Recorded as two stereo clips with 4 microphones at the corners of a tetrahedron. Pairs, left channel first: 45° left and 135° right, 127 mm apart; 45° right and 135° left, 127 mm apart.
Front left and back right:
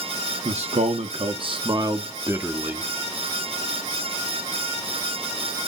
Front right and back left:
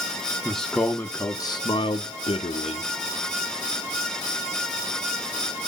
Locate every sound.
0.5 s a man speaking: 135° right, 1.0 m; by 2.9 s 55° right, 1.3 m